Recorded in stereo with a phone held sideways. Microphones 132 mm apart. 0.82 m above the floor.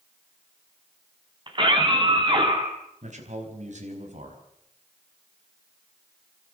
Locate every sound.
1.5 s a scream: 35° right (ahead or behind), 5 m
3.0 s a man speaking: 65° right (ahead or behind), 5 m